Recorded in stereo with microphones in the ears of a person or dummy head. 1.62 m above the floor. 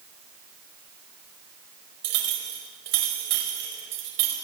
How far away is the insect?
No insect in this recording.